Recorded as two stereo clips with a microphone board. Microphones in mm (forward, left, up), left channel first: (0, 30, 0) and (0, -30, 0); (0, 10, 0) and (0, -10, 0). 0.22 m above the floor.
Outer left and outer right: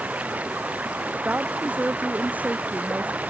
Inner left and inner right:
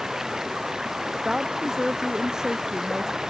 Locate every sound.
0.0 s running water: 25° right (ahead or behind)
1.2 s a woman speaking: 25° right (ahead or behind)